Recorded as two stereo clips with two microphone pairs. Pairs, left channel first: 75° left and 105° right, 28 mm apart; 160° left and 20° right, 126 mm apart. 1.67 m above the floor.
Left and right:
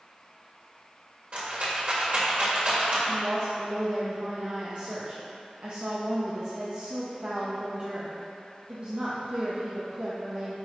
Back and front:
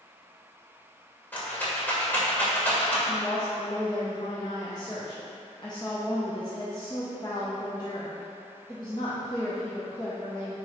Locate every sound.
1.3 s a rattle: 125° right, 2.0 m
3.1 s a woman speaking: 145° right, 1.0 m